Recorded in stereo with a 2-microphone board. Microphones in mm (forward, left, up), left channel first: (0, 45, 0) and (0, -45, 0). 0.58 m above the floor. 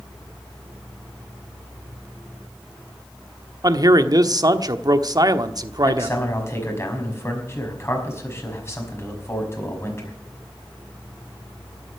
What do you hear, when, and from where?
3.6 s a man speaking: 45° right (ahead or behind), 1.1 m
5.8 s a man speaking: 30° left (ahead or behind), 5 m